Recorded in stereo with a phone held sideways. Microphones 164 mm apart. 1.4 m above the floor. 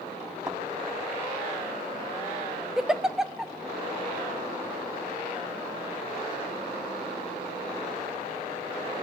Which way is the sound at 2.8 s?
5° right (ahead or behind).